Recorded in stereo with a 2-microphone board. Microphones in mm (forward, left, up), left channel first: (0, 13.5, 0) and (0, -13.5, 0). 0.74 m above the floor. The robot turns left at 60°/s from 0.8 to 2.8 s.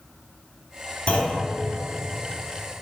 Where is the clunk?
45° left (ahead or behind), 2.5 m; by 1.4 s 70° left (ahead or behind), 2.5 m.